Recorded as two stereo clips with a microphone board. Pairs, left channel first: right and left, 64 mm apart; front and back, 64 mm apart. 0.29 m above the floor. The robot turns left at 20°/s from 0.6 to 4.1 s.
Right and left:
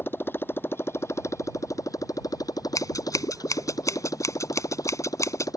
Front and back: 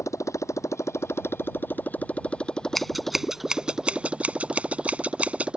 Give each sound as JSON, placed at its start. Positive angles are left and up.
{"t": 0.0, "sound": "a motorcycle", "azimuth_deg": -35}
{"t": 2.8, "sound": "scissors", "azimuth_deg": -90}